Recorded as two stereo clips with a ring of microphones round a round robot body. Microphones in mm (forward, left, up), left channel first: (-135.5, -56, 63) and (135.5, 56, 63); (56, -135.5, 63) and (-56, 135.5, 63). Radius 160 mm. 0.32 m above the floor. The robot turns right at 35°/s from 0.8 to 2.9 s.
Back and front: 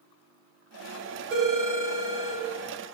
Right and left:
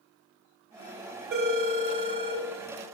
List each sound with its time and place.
1.3 s a phone ringing: 65° left, 0.8 m; by 2.4 s 105° left, 0.8 m